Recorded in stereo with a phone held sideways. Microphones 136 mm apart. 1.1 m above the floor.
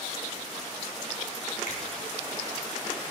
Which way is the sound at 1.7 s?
75° left (ahead or behind).